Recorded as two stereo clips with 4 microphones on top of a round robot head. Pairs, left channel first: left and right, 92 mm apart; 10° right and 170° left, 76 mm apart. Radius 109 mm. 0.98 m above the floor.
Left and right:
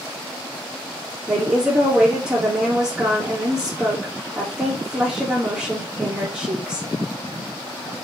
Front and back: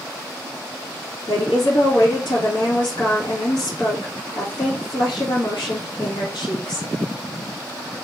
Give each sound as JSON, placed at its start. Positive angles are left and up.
{"t": 1.3, "sound": "a woman speaking", "azimuth_deg": -10, "distance_m": 2.0}